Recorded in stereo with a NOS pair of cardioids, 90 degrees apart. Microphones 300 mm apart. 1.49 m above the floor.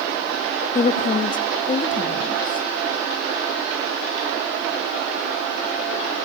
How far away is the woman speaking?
About 3 m.